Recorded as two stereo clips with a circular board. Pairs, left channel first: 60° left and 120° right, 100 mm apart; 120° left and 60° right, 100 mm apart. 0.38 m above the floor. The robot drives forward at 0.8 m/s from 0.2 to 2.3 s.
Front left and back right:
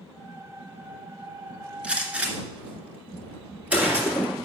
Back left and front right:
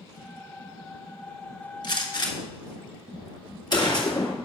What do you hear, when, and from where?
1.8 s a gunshot: 160° left, 1.6 m; by 4.5 s 165° left, 2.0 m